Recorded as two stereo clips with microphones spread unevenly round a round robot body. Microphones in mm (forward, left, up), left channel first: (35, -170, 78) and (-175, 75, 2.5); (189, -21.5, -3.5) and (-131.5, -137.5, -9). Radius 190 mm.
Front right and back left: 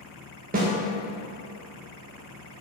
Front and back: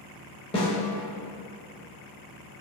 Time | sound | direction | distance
0.5 | a snare drum | 90° left | 0.6 m